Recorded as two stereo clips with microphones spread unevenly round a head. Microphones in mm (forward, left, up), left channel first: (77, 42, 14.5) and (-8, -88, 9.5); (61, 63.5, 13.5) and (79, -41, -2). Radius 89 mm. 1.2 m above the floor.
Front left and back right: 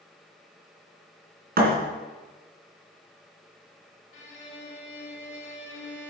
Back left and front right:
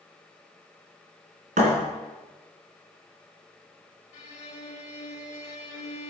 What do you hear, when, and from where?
1.6 s a thud: 100° right, 3 m
4.1 s a violin: 110° left, 1.8 m